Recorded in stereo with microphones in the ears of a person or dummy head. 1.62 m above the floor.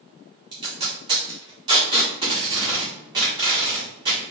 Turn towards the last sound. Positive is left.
turn(degrees=-30)  # may be behind; listen again after turning